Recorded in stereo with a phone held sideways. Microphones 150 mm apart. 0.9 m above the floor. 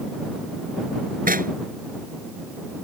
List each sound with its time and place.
1.3 s knocking: 70° right (ahead or behind)